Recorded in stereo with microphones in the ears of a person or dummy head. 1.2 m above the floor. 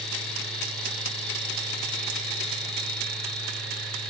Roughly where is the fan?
Centre.